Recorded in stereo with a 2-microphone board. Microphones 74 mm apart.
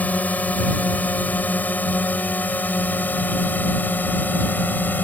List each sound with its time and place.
0.0 s a drone: 20° left (ahead or behind); by 5.0 s 25° left (ahead or behind)